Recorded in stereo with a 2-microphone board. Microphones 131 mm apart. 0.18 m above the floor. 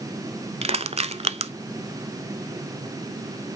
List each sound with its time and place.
0.6 s crushing: 50° right (ahead or behind), 0.6 m